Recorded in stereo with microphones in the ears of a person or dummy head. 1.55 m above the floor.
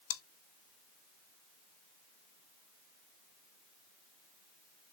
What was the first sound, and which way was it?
Chewing, 70° left (ahead or behind).